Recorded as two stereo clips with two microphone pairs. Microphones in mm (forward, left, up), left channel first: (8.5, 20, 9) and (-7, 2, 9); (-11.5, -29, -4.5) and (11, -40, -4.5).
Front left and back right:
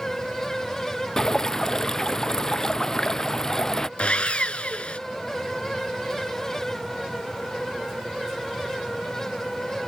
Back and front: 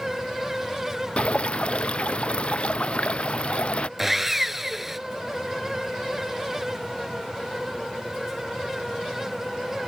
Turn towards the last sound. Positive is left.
turn(degrees=50)